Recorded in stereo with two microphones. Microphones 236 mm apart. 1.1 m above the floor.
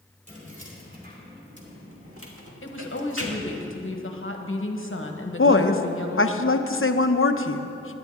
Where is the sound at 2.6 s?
60° left (ahead or behind), 1.2 m.